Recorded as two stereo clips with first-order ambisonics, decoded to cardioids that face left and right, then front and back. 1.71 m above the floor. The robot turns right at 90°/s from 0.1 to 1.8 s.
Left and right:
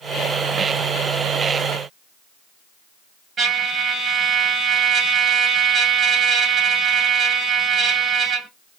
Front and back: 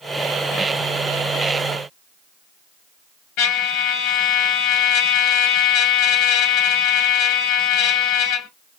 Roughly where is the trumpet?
Ahead right.